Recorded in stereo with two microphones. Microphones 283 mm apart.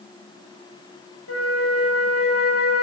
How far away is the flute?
About 0.7 m.